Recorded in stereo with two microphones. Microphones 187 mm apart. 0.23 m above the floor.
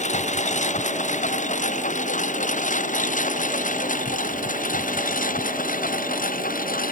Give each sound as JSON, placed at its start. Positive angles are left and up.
{"t": 0.0, "sound": "a lawn mower", "side_deg": 40}